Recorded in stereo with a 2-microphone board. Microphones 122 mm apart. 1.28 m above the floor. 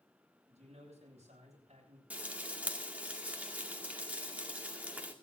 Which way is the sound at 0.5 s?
60° right (ahead or behind).